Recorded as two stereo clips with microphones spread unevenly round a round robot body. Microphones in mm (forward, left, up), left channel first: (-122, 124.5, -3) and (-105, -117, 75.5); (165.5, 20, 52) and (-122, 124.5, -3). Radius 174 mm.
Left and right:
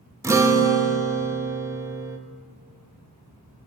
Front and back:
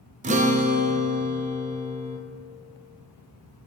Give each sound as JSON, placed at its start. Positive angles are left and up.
{"t": 0.2, "sound": "a guitar", "azimuth_deg": 175, "distance_m": 0.6}